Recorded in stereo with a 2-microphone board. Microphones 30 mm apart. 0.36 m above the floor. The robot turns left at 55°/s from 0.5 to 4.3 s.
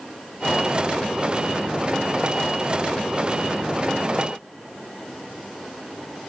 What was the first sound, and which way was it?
Only background noise.